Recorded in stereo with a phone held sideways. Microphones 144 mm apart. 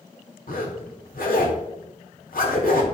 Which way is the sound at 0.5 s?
75° left (ahead or behind).